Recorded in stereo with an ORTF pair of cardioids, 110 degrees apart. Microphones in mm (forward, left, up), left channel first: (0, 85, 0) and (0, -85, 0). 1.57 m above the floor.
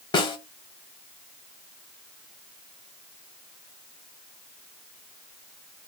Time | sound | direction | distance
0.1 | a snare drum | 25° left | 0.6 m